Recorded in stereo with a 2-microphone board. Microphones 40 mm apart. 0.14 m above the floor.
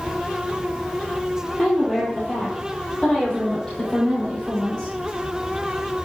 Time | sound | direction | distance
1.6 | a woman speaking | 10° left (ahead or behind) | 3 m